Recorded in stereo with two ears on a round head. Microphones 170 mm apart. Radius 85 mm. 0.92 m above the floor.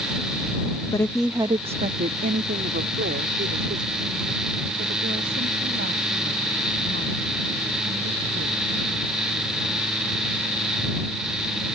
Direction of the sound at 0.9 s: 20° left (ahead or behind).